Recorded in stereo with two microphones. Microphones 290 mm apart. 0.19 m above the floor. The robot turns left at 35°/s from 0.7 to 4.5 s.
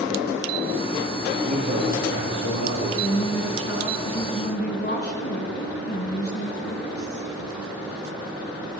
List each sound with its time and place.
1.5 s a man speaking: 25° right, 3.5 m; by 2.9 s 75° right, 3.5 m
3.0 s a woman speaking: 105° left, 1.6 m; by 7.3 s 50° left, 1.6 m